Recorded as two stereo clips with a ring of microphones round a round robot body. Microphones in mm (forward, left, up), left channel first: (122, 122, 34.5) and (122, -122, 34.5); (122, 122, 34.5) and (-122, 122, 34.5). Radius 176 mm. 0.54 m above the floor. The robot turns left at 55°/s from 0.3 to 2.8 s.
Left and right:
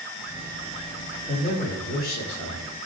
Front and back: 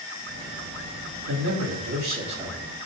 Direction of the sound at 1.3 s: 175° left.